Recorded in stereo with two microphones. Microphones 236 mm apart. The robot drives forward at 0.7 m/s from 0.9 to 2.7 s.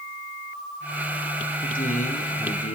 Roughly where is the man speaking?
Left.